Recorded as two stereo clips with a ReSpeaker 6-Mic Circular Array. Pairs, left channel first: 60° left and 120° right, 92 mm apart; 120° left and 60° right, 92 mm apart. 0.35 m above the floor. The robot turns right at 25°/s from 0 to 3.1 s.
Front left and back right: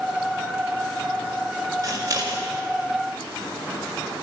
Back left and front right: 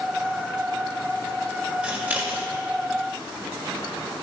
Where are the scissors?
125° right, 1.7 m; by 2.5 s 110° right, 1.7 m.